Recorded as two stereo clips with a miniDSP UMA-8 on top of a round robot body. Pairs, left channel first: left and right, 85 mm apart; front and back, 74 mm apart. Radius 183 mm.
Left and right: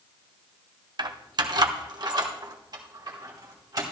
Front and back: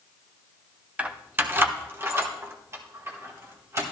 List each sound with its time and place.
1.0 s keys jangling: 110° right, 0.9 m; by 3.8 s 130° right, 2.5 m